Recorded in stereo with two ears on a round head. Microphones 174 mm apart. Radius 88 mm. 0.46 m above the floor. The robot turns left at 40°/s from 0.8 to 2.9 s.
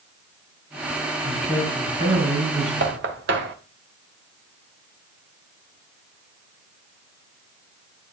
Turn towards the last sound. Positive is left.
turn(degrees=-60)  # may be behind; listen again after turning